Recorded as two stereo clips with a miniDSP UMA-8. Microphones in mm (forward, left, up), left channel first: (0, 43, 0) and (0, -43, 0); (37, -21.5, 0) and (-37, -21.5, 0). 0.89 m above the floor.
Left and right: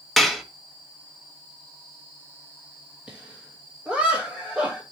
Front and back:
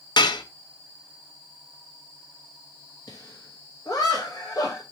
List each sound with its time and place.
0.2 s dishes clattering: straight ahead, 0.6 m
3.1 s laughter: 15° right, 1.1 m